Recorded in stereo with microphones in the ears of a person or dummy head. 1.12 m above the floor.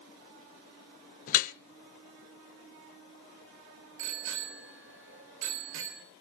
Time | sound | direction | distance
1.3 | dripping | 50° left (ahead or behind) | 0.8 m
4.0 | a bicycle bell | 70° right (ahead or behind) | 3.5 m